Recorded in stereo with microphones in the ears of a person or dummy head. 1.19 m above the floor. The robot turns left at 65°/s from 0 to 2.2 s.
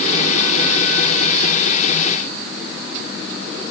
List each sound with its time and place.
Only background noise.